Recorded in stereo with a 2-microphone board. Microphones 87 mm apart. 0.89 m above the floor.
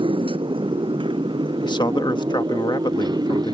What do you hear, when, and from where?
0.0 s a motorcycle: 85° right; by 3.5 s 50° right (ahead or behind)
1.6 s a man speaking: 60° left (ahead or behind)